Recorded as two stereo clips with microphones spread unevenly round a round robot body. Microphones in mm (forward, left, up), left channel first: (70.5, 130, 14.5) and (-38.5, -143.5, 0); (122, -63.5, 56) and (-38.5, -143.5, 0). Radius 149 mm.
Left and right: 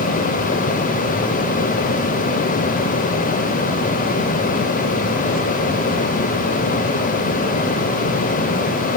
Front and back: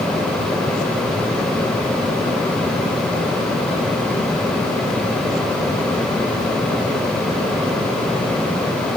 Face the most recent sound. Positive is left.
No sound to turn to.